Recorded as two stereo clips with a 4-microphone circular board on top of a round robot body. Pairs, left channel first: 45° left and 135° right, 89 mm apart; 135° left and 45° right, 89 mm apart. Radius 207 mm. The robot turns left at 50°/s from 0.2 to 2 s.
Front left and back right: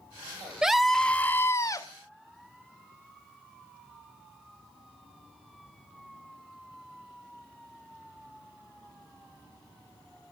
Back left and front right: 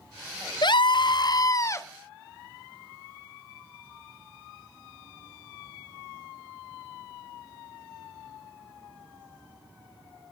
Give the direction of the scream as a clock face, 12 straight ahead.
7 o'clock.